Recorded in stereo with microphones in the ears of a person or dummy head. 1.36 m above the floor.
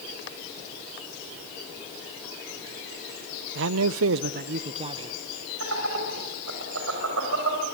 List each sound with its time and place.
3.5 s a man speaking: 65° right (ahead or behind), 0.7 m; by 5.2 s 20° right (ahead or behind), 1.4 m
5.6 s laughter: 80° right, 6 m